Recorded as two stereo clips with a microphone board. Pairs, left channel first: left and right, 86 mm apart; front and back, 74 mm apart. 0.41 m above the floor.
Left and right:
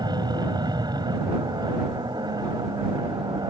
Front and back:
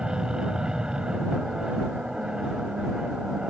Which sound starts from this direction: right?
An aircraft, at 0.0 s.